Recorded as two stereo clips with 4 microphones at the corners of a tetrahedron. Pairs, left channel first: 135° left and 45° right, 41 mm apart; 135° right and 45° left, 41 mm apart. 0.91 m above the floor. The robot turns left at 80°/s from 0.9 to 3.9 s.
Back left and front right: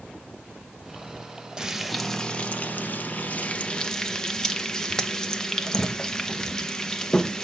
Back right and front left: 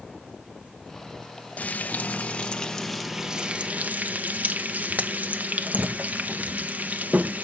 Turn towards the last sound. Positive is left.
turn(degrees=65)